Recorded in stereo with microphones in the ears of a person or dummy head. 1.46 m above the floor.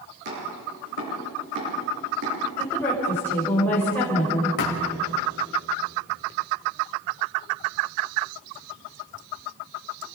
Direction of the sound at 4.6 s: 65° left (ahead or behind).